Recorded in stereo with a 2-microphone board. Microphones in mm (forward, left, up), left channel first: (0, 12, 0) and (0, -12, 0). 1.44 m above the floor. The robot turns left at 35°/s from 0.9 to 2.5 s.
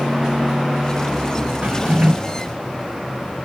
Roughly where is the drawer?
Right.